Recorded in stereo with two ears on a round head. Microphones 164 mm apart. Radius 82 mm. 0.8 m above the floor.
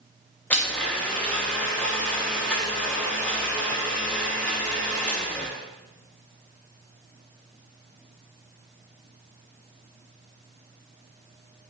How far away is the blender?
About 1.5 m.